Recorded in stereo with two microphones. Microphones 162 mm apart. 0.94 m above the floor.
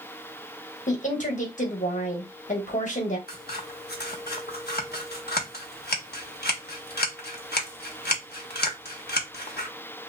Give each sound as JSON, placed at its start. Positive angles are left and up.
{"t": 0.9, "sound": "a woman speaking", "side_deg": 50, "distance_m": 1.3}
{"t": 3.3, "sound": "scissors", "side_deg": 80, "distance_m": 1.0}